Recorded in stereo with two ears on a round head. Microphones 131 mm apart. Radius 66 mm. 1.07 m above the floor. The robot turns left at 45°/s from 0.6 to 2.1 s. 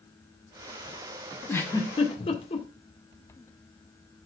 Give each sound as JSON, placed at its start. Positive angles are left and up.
{"t": 1.5, "sound": "a giggle", "side_deg": 10, "distance_m": 1.8}